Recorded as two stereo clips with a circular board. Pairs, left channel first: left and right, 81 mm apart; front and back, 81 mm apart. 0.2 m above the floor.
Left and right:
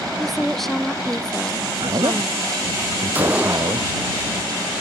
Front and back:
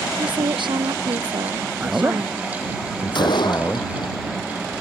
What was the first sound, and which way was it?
A woman speaking, straight behind.